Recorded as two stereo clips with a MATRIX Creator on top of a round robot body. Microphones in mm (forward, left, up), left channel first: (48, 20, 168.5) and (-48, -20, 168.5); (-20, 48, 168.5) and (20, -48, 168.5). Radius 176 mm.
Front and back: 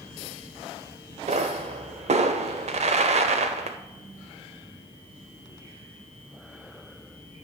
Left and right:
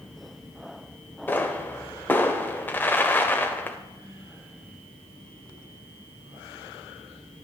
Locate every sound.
1.3 s a pop: 175° right, 0.6 m